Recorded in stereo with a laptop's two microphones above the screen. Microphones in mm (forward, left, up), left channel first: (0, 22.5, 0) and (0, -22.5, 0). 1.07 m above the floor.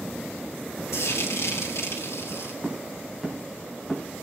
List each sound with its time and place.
0.9 s frying: 90° left, 2.5 m
2.6 s footsteps: 5° right (ahead or behind), 4 m; by 4.1 s 5° left (ahead or behind), 5 m